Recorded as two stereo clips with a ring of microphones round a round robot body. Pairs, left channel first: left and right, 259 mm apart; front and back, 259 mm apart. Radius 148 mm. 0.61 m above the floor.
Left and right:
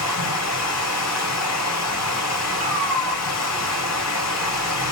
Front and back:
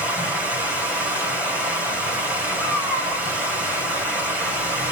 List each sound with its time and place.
0.0 s running water: 95° left, 2.5 m
2.6 s a cat meowing: 30° right, 3 m